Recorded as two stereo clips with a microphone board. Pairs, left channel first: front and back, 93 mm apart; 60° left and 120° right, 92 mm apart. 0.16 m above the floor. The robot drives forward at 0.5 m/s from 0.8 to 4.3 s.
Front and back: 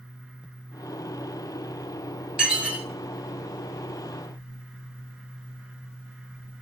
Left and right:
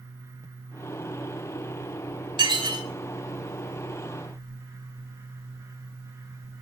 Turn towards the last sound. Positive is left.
turn(degrees=-125)